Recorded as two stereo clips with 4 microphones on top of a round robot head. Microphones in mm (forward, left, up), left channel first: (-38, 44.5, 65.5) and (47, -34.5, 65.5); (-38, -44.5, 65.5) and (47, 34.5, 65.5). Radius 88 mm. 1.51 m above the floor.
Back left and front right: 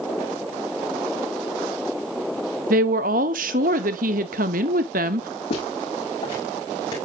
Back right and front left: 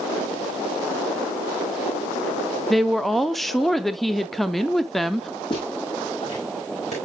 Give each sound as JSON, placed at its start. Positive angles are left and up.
{"t": 2.7, "sound": "a woman speaking", "azimuth_deg": -45, "distance_m": 0.6}
{"t": 5.5, "sound": "footsteps", "azimuth_deg": 175, "distance_m": 5.5}